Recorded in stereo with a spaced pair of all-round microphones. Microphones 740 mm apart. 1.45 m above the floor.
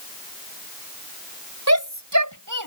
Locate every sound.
1.7 s a shout: 20° right (ahead or behind); by 2.7 s 25° right (ahead or behind)